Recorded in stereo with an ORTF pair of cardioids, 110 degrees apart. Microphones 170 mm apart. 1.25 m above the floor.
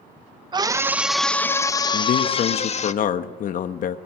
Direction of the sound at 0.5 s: 25° right.